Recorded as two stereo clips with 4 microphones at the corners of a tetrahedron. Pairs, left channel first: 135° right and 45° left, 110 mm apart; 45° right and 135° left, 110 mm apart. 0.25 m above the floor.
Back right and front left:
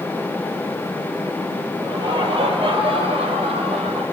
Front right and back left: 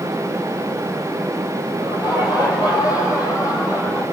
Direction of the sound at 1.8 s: Straight ahead.